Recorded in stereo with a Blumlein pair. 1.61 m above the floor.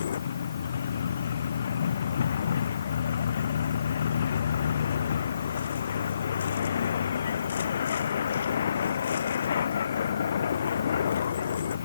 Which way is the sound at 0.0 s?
65° left.